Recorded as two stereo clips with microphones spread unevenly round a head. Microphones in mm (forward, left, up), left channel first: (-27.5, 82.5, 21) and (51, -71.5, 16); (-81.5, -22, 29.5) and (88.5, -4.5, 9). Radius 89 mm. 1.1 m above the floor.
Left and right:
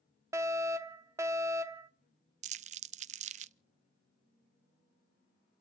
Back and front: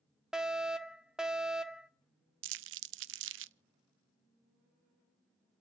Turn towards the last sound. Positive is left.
turn(degrees=-10)